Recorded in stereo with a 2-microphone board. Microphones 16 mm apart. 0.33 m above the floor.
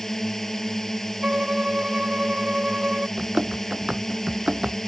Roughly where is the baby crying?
I don't hear a baby crying.